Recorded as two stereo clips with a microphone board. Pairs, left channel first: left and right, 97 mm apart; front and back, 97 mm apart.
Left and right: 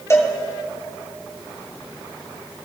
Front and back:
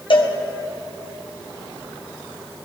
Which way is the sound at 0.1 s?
30° left.